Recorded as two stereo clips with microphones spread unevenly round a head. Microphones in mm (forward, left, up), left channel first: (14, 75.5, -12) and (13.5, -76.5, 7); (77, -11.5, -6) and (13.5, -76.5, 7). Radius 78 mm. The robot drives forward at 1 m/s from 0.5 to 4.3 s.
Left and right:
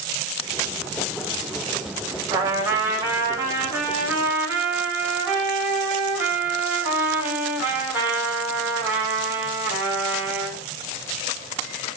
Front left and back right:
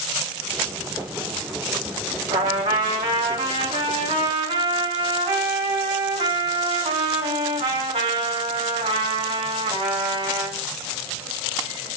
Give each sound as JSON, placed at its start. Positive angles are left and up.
{"t": 2.3, "sound": "a trumpet", "azimuth_deg": -160, "distance_m": 3.0}